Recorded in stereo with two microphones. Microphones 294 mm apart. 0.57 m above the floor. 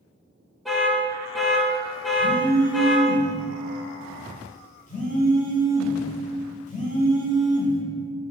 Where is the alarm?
Centre (ahead or behind), 0.6 m.